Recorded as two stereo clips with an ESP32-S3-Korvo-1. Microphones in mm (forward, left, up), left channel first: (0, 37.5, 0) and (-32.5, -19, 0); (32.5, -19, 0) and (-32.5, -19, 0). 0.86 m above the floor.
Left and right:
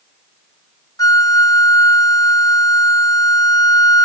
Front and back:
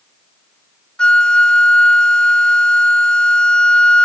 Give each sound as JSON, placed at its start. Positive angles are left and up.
{"t": 1.0, "sound": "a flute", "azimuth_deg": 75}